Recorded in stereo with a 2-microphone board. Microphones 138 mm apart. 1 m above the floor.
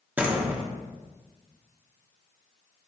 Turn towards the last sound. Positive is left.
turn(degrees=-10)  # may be behind; listen again after turning